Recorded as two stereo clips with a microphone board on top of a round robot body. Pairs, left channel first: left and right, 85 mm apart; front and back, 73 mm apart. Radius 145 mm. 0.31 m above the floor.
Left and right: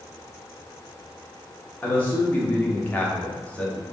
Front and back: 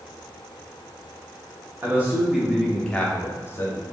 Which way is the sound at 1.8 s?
150° left.